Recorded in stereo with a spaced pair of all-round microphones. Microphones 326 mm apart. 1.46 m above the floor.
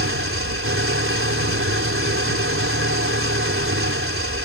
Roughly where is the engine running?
Right.